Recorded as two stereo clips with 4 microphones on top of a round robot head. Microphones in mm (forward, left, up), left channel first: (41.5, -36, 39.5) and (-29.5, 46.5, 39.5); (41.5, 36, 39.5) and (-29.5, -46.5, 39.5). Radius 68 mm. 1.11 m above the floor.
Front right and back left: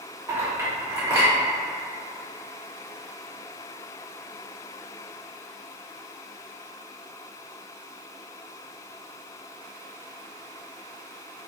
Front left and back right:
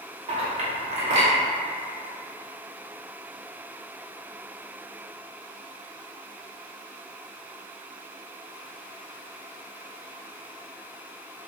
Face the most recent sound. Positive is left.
turn(degrees=-165)